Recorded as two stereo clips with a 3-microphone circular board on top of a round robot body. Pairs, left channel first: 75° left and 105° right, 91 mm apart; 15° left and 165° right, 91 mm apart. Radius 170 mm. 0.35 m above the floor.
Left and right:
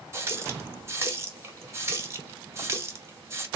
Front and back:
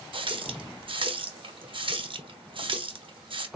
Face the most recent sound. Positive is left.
turn(degrees=-165)